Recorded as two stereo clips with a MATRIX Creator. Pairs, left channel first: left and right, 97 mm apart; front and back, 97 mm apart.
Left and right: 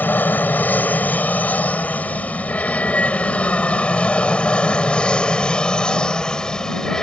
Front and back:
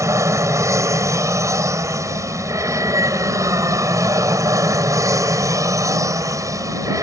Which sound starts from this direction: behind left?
An aircraft, at 0.0 s.